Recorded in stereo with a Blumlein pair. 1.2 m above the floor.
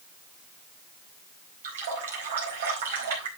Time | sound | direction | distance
1.6 | a running tap | 60° right | 4 m